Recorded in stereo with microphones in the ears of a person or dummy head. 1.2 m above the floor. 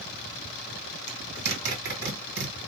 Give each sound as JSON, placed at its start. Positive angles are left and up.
{"t": 1.1, "sound": "a zipper", "side_deg": -75, "distance_m": 1.5}